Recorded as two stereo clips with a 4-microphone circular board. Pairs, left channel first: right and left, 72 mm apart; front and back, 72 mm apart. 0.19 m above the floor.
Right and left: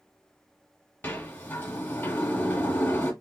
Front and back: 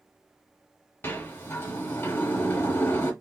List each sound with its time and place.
1.0 s a sliding door: 40° right, 1.5 m